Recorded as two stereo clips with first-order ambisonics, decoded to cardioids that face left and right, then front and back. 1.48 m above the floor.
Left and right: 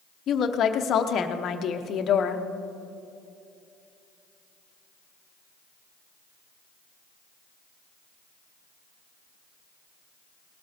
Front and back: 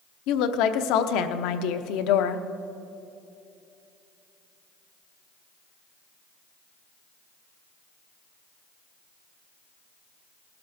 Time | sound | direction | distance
0.3 | a woman speaking | 30° left | 0.9 m